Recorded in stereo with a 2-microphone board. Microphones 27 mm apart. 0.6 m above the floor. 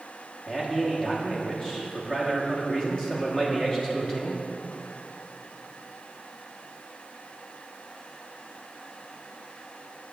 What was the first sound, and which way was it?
A man speaking, 25° left (ahead or behind).